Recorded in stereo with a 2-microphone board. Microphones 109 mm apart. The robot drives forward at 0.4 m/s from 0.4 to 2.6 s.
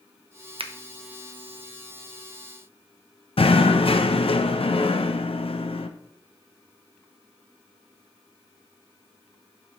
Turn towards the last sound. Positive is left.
turn(degrees=60)  # may be behind; listen again after turning